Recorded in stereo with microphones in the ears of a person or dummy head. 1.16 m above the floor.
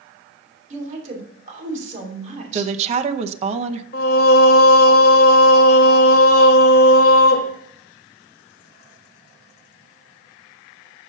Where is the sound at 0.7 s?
45° right (ahead or behind), 2.5 m.